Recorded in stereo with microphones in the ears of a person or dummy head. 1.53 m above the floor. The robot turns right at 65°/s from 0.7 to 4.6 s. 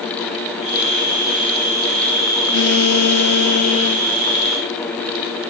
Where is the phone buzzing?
60° left, 0.7 m; by 4.1 s 160° left, 0.7 m.